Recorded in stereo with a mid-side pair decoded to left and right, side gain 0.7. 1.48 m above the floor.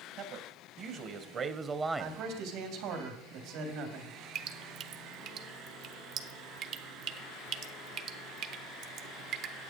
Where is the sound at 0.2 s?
55° right, 1.6 m; by 2.2 s 10° right, 0.7 m.